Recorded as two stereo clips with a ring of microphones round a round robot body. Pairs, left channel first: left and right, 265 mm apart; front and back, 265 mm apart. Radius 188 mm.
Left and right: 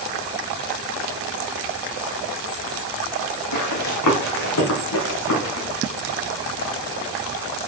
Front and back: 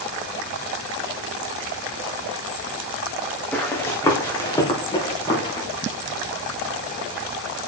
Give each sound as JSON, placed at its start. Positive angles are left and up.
{"t": 3.5, "sound": "running footsteps", "azimuth_deg": 85, "distance_m": 3.0}